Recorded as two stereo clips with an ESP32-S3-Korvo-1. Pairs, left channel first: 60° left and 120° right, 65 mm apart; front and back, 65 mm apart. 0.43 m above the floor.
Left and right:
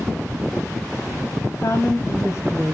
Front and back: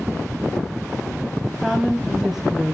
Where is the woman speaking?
95° left, 2 m.